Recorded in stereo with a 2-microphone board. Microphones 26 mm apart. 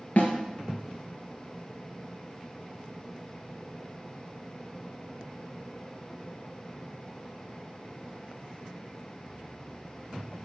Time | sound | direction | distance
0.2 | a snare drum | 65° left (ahead or behind) | 1.8 m